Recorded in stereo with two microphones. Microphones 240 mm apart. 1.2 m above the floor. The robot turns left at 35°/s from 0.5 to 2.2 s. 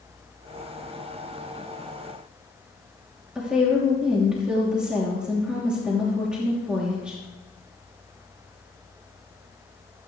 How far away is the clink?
No clink in this recording.